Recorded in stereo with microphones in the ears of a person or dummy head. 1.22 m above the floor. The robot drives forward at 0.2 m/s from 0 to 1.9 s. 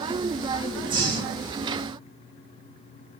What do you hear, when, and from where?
0.9 s breathing: 25° right (ahead or behind), 1.0 m; by 1.5 s 20° right (ahead or behind), 1.1 m